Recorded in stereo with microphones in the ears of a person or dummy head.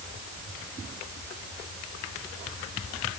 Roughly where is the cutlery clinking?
No cutlery clinking in this recording.